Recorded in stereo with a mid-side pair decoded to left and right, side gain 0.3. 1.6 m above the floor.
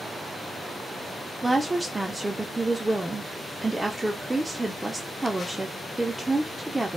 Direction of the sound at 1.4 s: 25° right.